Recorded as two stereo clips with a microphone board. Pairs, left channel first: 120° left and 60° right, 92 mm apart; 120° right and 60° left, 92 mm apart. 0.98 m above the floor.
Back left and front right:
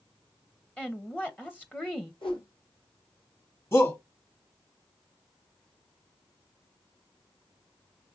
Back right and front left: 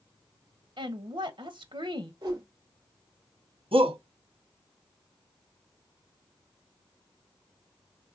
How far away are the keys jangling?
I don't hear keys jangling.